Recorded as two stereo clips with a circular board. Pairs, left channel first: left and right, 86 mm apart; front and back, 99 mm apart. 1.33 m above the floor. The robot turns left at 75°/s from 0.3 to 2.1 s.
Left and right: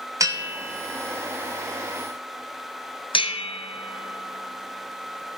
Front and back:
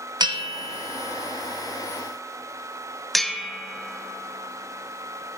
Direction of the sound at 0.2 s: 135° right.